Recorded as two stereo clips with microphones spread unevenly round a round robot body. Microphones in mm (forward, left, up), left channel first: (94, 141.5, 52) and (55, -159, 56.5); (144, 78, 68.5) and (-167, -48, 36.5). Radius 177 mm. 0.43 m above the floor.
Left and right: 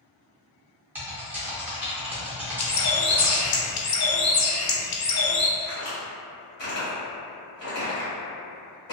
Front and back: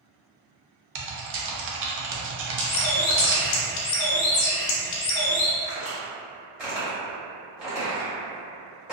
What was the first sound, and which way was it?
Typing on a keyboard, straight behind.